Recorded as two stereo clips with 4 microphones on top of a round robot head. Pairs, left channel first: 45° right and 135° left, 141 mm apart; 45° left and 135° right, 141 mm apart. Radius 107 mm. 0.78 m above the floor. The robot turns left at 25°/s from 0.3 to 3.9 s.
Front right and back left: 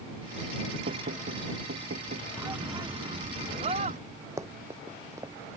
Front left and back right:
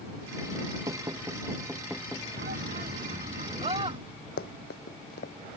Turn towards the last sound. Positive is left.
turn(degrees=60)